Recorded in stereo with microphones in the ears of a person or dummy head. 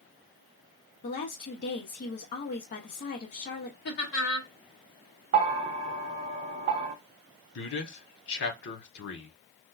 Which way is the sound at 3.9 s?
65° left (ahead or behind).